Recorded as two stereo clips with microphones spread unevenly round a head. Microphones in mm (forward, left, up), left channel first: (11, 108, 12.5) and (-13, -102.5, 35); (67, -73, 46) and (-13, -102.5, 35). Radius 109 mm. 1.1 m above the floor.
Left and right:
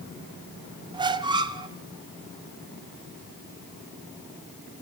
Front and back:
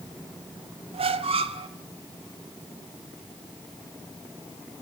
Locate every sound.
0.9 s a squeak: 165° right, 0.8 m